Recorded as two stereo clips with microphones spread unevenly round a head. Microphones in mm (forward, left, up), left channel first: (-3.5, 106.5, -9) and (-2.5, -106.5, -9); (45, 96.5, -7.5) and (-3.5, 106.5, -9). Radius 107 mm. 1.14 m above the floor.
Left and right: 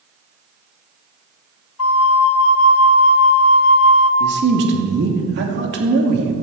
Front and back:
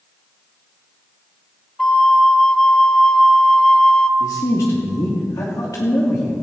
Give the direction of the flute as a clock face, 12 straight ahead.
10 o'clock.